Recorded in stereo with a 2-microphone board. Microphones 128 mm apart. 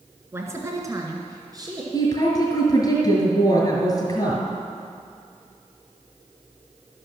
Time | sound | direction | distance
0.3 | a woman speaking | 20° right (ahead or behind) | 1.6 m
1.9 | a woman speaking | 30° left (ahead or behind) | 2 m